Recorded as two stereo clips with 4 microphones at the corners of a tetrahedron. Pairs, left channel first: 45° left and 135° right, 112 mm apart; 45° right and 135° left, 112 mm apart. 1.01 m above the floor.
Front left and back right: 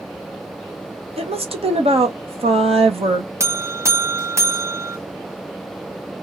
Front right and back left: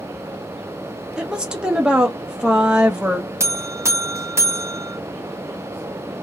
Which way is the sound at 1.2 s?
145° right.